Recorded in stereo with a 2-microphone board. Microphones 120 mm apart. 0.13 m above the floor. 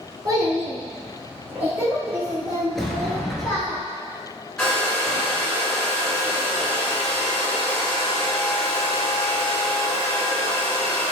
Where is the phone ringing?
No phone ringing in this recording.